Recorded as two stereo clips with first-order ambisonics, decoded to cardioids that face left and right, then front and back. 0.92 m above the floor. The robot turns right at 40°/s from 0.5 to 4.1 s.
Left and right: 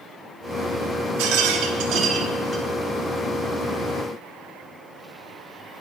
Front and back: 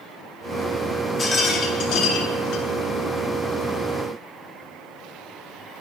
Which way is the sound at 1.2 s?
75° right.